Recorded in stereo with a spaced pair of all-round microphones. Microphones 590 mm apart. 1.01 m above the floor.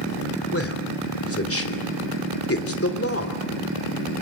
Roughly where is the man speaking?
Left.